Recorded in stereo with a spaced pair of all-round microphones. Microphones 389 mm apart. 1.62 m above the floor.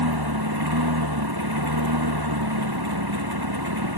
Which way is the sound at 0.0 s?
70° right (ahead or behind).